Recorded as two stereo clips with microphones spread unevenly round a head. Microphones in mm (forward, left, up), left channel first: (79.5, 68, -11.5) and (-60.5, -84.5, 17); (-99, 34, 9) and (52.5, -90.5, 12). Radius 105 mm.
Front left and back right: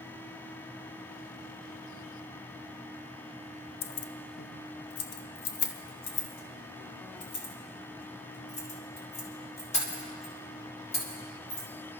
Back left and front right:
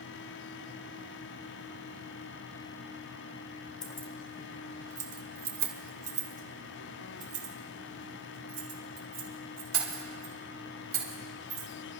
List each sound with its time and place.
3.8 s keys jangling: 75° left, 0.6 m; by 11.7 s 15° right, 4.5 m